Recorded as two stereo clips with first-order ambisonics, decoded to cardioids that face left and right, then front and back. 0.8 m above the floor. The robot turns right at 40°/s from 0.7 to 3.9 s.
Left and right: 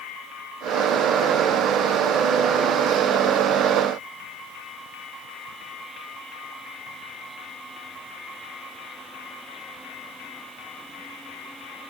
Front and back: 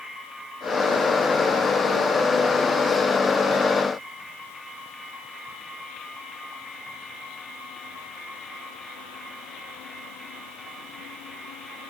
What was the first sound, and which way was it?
Only background noise.